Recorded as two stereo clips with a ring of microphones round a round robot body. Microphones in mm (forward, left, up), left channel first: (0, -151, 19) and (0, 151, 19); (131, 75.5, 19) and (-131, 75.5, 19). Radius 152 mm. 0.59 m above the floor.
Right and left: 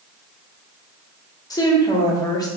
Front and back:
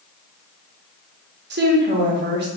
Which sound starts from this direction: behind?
A woman speaking, at 1.5 s.